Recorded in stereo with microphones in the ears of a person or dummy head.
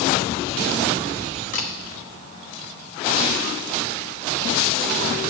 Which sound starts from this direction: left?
A camera shutter, at 1.5 s.